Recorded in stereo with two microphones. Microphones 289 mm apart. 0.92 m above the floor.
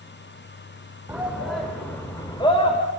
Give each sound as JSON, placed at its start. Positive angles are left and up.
{"t": 1.1, "sound": "a shout", "side_deg": -5, "distance_m": 3.5}